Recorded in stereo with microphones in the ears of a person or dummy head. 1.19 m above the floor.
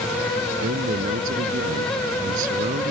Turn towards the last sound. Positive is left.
turn(degrees=-45)  # may be behind; listen again after turning